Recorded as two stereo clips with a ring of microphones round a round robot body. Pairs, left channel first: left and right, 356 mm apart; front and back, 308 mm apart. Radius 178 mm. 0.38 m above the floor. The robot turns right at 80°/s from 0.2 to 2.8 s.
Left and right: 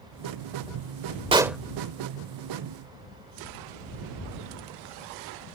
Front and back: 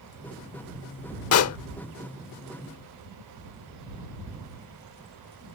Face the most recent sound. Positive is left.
turn(degrees=100)